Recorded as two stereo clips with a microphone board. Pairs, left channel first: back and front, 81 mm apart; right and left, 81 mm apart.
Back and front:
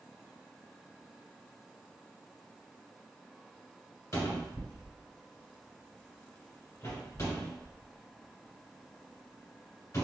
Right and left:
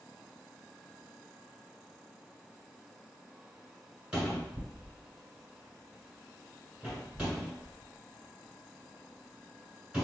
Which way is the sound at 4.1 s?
160° left.